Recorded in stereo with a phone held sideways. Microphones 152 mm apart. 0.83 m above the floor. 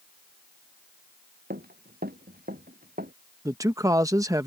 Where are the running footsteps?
85° right; by 3.1 s 75° right (ahead or behind).